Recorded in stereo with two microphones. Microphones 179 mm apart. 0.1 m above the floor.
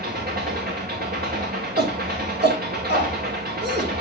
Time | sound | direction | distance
0.0 | an engine running | 60° right (ahead or behind) | 3.5 m
1.8 | a shout | 70° right (ahead or behind) | 4.5 m